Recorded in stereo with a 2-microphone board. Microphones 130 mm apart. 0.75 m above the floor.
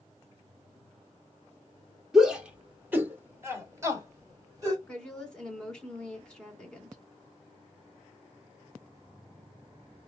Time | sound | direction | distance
2.1 | a shout | 5° right (ahead or behind) | 1.6 m
4.9 | a woman speaking | 5° left (ahead or behind) | 2.5 m